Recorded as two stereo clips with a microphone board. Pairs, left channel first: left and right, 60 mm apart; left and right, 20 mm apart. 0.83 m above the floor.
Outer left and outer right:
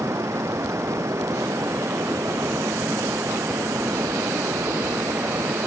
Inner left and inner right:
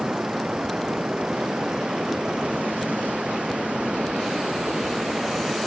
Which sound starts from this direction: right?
Running water, at 0.0 s.